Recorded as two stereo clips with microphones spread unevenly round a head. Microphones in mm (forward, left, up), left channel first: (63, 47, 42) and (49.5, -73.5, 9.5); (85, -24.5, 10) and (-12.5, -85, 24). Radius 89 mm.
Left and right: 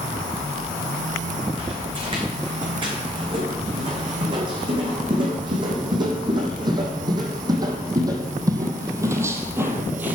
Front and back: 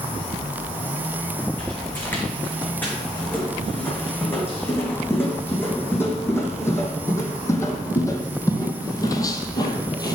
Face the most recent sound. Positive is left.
turn(degrees=-5)